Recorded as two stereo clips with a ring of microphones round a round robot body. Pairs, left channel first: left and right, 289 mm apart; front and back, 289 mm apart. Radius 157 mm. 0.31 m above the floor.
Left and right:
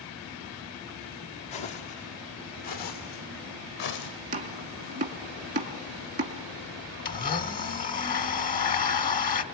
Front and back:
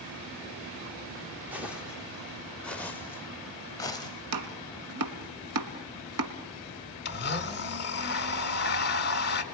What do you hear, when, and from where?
1.5 s footsteps: 95° left, 4.5 m; by 4.1 s 75° left, 5 m
4.3 s chopping: 155° right, 1.6 m
7.0 s a blender: 40° left, 1.6 m